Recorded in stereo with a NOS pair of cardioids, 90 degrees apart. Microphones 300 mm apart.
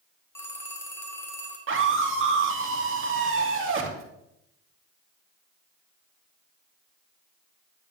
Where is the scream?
40° right, 3 m.